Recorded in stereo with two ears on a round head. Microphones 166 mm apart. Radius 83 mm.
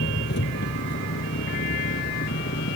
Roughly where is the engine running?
Left.